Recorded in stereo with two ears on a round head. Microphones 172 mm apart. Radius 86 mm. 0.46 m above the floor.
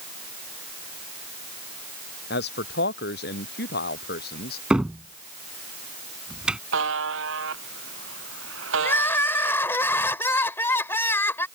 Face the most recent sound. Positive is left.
turn(degrees=10)  # may be behind; listen again after turning